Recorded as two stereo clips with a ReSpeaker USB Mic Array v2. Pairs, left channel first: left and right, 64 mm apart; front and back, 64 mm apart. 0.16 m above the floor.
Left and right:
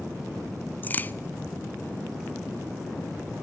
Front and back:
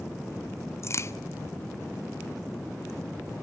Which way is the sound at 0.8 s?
35° left.